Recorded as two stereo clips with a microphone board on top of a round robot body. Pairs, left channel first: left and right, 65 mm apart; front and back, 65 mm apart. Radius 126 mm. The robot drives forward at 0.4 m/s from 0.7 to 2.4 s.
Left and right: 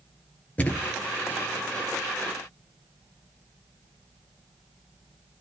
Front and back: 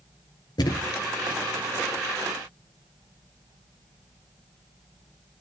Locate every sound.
0.6 s a thud: 20° left, 1.5 m; by 0.9 s 25° left, 1.4 m